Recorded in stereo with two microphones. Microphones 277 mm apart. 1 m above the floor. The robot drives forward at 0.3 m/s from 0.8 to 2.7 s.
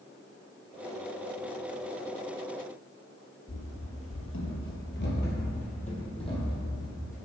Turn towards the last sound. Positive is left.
turn(degrees=10)  # may be behind; listen again after turning